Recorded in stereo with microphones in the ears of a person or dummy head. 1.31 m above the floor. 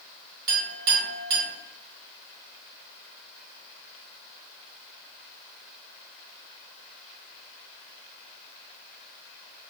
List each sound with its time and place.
0.5 s a clink: 50° right (ahead or behind), 1.3 m